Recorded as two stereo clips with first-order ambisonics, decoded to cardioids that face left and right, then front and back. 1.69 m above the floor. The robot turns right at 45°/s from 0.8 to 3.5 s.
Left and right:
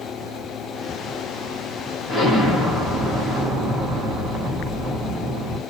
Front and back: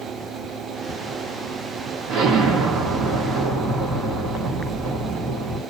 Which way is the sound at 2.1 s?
160° left.